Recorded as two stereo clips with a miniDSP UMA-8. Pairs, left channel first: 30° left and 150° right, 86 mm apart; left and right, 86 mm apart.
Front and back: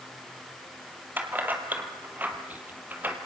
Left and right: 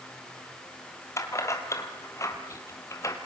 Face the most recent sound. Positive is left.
turn(degrees=140)